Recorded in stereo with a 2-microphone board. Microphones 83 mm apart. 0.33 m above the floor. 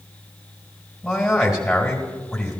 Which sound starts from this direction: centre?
A man speaking, at 1.0 s.